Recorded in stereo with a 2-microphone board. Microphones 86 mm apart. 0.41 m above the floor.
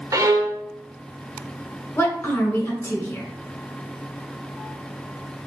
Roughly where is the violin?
Right.